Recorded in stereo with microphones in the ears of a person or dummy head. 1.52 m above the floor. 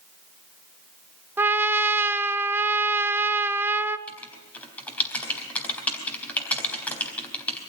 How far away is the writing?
About 4 m.